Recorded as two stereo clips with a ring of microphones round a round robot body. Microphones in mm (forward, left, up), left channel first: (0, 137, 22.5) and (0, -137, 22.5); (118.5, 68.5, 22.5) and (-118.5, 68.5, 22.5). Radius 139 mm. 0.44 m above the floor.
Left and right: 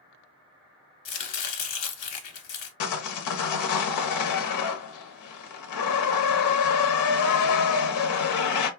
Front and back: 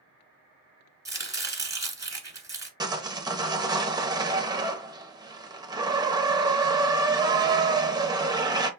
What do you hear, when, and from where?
1.1 s chopping: 105° left, 1.7 m
2.8 s sawing: 105° left, 0.9 m